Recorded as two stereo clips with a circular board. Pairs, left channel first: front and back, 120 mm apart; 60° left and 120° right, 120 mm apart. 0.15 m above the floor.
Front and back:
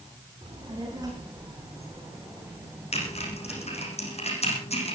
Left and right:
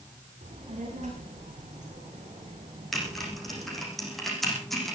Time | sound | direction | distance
0.4 | a child speaking | 130° right | 7 m
2.9 | typing on a keyboard | 30° right | 7 m